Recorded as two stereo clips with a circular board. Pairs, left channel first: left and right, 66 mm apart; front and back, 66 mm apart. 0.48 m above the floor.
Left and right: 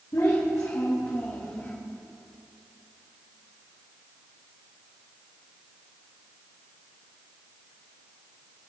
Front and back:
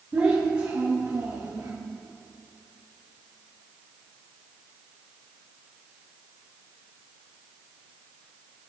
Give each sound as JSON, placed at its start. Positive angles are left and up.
{"t": 0.1, "sound": "a child speaking", "azimuth_deg": 115, "distance_m": 2.0}